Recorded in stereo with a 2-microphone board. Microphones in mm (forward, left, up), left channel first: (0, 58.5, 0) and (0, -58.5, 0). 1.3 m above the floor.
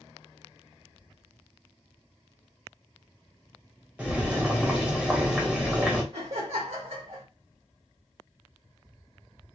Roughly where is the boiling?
Centre.